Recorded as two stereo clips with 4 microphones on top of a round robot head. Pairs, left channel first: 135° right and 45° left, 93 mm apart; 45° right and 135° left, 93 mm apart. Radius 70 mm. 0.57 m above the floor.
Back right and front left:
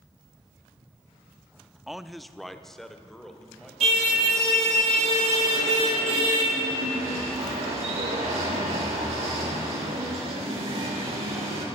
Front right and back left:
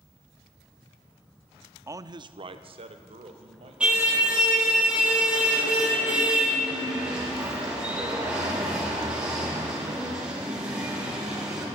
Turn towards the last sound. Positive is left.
turn(degrees=55)